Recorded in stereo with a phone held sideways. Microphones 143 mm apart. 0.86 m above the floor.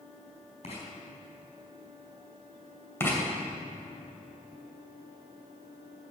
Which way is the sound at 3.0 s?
15° left (ahead or behind).